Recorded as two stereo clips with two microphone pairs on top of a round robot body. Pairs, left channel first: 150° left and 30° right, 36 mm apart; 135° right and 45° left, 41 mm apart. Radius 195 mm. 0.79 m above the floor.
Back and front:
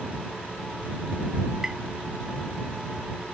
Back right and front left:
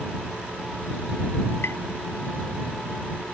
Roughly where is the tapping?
Behind right.